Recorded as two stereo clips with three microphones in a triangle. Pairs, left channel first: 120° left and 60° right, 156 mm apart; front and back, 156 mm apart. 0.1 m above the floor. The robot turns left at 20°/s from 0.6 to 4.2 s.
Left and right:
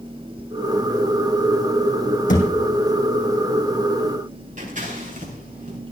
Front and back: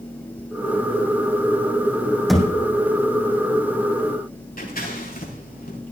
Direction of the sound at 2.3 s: 90° left.